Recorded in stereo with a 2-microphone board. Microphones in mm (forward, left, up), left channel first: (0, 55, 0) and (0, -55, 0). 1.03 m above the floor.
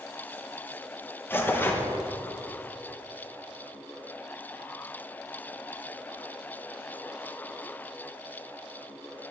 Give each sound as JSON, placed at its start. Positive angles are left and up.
{"t": 1.3, "sound": "tearing paper", "side_deg": 20, "distance_m": 0.7}